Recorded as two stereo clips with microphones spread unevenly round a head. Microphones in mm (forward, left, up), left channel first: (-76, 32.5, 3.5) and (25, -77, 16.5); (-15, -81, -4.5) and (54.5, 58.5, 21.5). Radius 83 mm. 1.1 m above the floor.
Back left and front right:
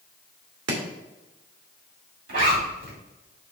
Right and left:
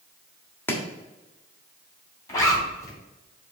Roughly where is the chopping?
Ahead right.